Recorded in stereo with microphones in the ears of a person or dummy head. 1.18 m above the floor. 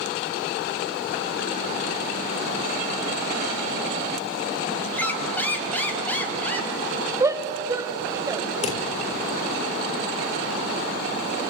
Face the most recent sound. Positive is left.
turn(degrees=40)  # may be behind; listen again after turning